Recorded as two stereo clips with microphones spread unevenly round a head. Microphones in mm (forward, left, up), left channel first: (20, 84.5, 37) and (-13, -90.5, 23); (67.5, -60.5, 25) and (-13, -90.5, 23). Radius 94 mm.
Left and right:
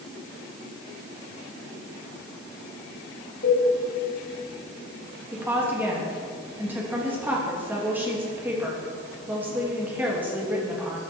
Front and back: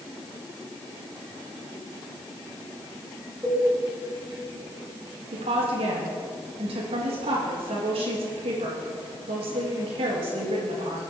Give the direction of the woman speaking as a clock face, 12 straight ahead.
6 o'clock.